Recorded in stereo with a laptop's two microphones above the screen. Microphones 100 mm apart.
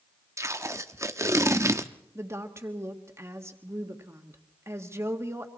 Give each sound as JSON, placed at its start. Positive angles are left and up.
{"t": 0.4, "sound": "tape being pulled", "side_deg": -30, "distance_m": 0.7}
{"t": 2.1, "sound": "a woman speaking", "side_deg": -25, "distance_m": 1.4}